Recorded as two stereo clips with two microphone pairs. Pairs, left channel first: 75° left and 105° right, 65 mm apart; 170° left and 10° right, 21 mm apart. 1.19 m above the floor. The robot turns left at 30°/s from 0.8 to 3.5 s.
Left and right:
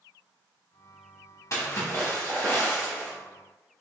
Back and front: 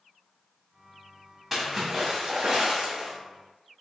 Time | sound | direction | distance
1.5 | a splash | 75° left | 1.5 m